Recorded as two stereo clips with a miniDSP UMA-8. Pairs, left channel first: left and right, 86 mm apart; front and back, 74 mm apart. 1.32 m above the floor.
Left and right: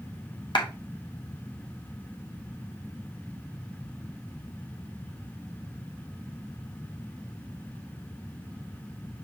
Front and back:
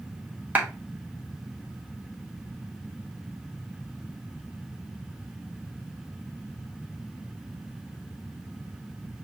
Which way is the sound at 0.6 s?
115° left.